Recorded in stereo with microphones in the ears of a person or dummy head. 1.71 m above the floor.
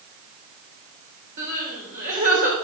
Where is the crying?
55° right (ahead or behind), 3.5 m.